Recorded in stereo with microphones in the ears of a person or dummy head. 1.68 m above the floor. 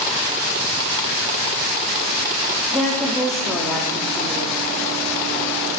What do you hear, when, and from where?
2.7 s a woman speaking: 5° left (ahead or behind), 0.7 m